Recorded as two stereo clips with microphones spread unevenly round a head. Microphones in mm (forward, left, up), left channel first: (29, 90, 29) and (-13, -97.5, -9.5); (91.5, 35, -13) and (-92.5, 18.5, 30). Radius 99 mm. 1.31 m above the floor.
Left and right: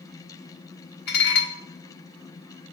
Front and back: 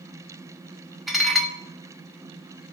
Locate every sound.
1.1 s dishes clattering: 100° left, 1.2 m